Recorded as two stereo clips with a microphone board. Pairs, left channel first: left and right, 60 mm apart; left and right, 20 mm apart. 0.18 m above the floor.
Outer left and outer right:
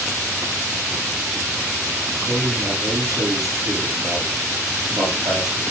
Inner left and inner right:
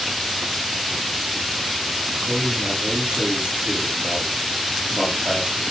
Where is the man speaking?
70° right (ahead or behind), 8 m.